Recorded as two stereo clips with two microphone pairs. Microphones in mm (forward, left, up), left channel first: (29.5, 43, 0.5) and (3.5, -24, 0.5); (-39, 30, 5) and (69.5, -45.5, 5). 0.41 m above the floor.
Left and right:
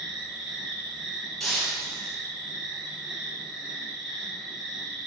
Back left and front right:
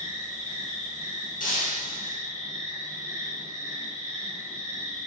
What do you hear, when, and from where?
0.0 s an insect: 165° left, 5.5 m
1.4 s breaking glass: 155° left, 5.5 m